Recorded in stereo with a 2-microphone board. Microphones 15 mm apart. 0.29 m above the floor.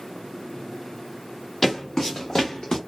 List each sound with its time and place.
1.6 s footsteps: 30° left (ahead or behind), 1.7 m; by 2.8 s 50° left (ahead or behind), 1.2 m